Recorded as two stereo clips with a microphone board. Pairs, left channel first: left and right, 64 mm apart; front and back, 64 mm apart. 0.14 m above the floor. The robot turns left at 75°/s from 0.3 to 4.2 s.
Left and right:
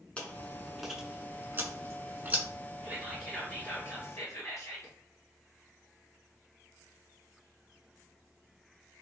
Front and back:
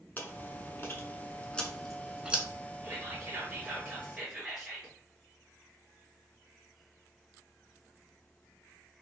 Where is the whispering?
155° right, 1.7 m; by 4.9 s 105° left, 1.7 m.